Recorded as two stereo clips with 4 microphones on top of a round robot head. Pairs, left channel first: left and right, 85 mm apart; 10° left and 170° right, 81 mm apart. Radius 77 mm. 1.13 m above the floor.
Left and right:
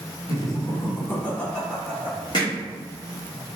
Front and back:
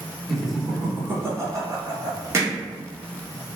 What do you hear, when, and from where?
0.3 s laughter: 100° left, 0.9 m; by 2.2 s 165° right, 1.0 m
2.3 s hammering: 140° left, 0.5 m